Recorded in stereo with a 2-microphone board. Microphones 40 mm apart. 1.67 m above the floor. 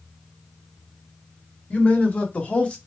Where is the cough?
I don't hear a cough.